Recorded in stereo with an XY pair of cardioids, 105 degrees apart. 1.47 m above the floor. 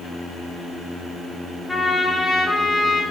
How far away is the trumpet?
About 1.3 m.